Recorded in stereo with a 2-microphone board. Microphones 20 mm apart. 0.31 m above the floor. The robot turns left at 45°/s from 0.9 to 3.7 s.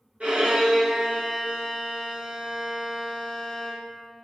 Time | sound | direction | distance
0.2 | a violin | 95° right | 3.5 m